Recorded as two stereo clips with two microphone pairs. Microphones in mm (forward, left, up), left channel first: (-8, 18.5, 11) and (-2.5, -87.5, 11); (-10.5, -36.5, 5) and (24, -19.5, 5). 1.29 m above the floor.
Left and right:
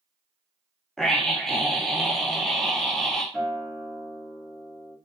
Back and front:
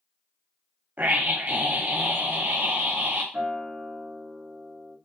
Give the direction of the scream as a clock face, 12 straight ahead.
12 o'clock.